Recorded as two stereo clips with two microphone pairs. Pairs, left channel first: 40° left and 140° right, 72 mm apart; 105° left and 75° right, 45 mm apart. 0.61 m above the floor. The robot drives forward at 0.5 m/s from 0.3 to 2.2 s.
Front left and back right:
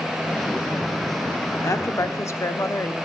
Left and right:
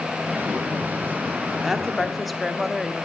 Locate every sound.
1.6 s a woman speaking: 10° left, 1.3 m; by 3.0 s 15° left, 1.1 m